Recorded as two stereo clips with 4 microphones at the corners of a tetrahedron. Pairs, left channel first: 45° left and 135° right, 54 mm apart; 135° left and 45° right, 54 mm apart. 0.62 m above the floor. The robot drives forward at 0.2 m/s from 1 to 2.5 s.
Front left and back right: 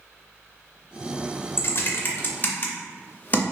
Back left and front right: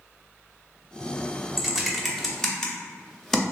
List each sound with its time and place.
1.6 s typing on a keyboard: 40° left, 0.6 m; by 3.4 s 60° left, 0.5 m